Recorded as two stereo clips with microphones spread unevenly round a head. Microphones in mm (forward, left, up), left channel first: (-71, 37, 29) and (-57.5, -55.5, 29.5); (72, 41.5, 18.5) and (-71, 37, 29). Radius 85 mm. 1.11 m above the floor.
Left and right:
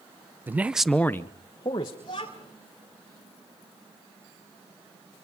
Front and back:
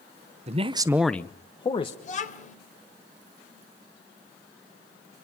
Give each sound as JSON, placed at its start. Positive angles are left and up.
{"t": 0.5, "sound": "a man speaking", "azimuth_deg": -145, "distance_m": 0.9}
{"t": 2.0, "sound": "a child speaking", "azimuth_deg": 35, "distance_m": 3.0}